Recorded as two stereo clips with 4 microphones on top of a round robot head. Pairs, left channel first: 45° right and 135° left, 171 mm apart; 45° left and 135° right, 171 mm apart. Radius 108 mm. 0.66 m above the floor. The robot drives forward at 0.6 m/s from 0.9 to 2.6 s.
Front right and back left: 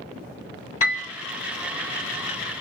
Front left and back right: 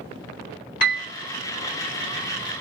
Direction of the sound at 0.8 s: 10° left.